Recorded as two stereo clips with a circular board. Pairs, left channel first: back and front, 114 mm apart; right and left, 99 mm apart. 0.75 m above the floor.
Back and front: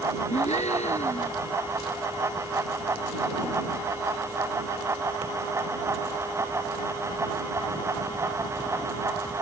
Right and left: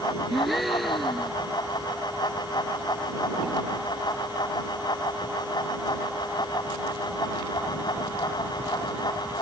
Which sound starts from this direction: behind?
A gasp, at 0.3 s.